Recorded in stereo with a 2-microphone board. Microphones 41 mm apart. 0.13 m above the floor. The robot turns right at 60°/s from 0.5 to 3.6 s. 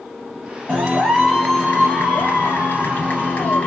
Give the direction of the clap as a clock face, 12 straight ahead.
1 o'clock.